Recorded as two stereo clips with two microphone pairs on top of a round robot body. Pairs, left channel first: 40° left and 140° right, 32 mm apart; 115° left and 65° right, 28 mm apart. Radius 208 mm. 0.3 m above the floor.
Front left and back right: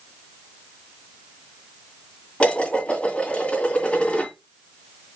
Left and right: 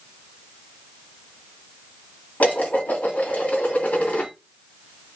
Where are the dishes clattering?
85° left, 2.5 m.